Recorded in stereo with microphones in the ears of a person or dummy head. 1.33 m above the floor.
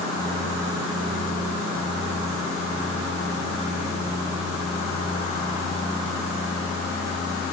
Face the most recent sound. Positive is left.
No sound to turn to.